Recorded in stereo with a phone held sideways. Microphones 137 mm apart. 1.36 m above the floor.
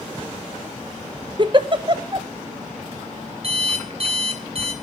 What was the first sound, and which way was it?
A giggle, 35° right (ahead or behind).